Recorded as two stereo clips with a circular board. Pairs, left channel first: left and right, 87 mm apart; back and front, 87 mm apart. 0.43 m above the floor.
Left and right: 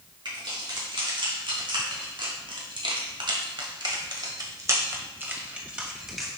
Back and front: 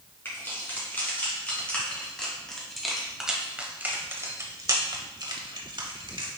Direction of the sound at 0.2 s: 115° right.